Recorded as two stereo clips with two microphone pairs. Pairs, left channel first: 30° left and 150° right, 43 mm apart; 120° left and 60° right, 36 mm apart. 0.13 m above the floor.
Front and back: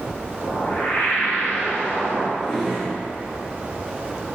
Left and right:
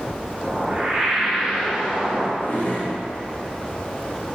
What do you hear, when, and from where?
0.4 s a whoosh: straight ahead, 1.2 m
2.4 s a drawer: 120° left, 1.1 m